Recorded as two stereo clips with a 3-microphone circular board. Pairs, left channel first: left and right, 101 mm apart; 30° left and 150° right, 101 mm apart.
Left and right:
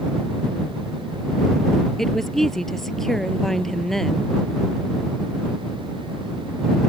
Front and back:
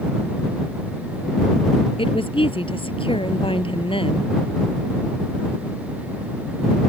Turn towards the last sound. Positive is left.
turn(degrees=5)